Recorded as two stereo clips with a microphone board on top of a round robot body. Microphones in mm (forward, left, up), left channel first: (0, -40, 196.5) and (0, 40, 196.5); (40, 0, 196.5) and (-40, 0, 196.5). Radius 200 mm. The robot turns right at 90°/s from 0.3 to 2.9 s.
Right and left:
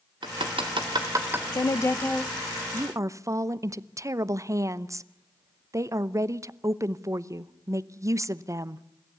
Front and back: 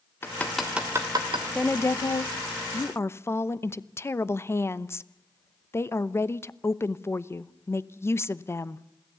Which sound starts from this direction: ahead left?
Hammering, at 0.2 s.